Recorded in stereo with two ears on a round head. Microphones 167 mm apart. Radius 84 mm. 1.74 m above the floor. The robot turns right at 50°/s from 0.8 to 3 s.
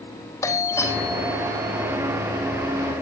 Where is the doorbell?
165° left, 4.5 m; by 2.0 s 135° right, 4.5 m.